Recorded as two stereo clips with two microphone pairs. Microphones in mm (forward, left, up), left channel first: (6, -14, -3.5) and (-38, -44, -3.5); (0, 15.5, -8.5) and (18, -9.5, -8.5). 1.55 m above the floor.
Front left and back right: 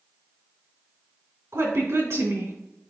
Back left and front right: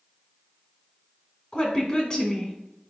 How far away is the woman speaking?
About 2.5 m.